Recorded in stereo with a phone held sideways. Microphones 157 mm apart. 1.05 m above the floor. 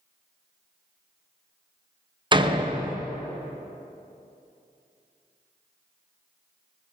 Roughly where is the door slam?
Right.